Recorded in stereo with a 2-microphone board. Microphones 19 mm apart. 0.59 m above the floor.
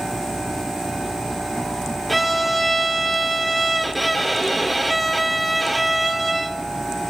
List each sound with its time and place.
2.1 s a violin: centre (ahead or behind), 1.5 m